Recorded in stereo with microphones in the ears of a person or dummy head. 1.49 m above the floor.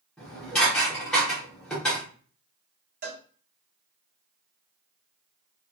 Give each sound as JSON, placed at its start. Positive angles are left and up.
{"t": 0.2, "sound": "dishes clattering", "side_deg": 0, "distance_m": 0.6}
{"t": 3.0, "sound": "a cowbell", "side_deg": -50, "distance_m": 0.9}